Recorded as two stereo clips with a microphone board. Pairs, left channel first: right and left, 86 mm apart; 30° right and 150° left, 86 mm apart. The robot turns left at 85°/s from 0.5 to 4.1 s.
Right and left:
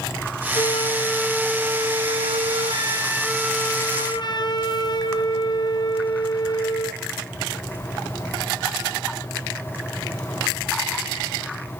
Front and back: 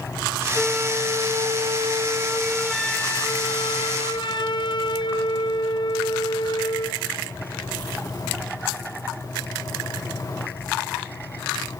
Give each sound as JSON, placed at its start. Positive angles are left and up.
{"t": 0.6, "sound": "a flute", "azimuth_deg": -115, "distance_m": 1.4}